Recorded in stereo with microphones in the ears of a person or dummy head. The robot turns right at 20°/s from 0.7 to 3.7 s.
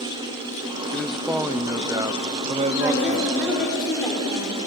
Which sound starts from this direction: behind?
A man speaking, at 0.9 s.